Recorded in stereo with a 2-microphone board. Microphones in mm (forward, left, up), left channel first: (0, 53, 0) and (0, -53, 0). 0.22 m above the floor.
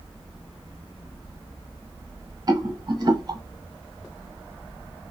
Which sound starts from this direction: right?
A rattle, at 2.5 s.